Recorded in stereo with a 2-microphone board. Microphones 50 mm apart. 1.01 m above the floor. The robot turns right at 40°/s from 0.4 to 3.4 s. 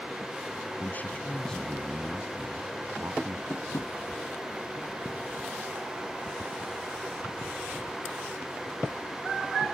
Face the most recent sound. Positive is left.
turn(degrees=60)  # may be behind; listen again after turning